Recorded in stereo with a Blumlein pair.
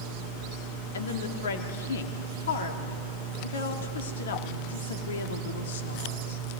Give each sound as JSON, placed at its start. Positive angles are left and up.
{"t": 0.9, "sound": "a woman speaking", "azimuth_deg": 65, "distance_m": 2.0}